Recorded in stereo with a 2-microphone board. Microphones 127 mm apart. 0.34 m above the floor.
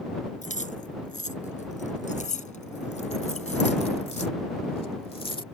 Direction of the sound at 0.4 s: 75° left (ahead or behind).